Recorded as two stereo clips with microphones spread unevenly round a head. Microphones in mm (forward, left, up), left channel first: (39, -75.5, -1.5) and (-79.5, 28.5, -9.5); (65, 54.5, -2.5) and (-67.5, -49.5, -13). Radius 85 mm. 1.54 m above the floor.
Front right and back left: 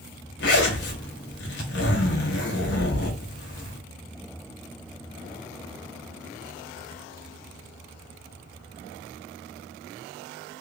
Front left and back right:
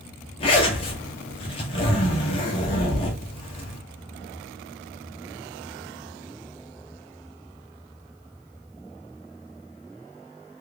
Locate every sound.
0.4 s a zipper: 20° right, 1.0 m